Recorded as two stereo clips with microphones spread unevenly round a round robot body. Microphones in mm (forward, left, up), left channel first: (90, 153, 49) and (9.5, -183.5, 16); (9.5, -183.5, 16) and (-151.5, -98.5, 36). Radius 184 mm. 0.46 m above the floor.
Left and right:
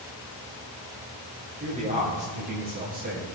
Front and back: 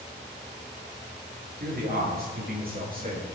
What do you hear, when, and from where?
1.6 s a man speaking: 175° right, 9 m; by 3.3 s 170° right, 9.5 m